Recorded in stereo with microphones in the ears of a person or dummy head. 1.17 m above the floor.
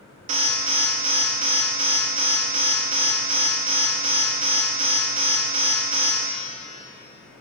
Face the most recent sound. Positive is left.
turn(degrees=-35)  # may be behind; listen again after turning